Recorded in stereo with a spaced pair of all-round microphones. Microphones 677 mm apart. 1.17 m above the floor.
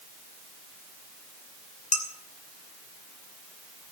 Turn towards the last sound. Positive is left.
turn(degrees=25)  # may be behind; listen again after turning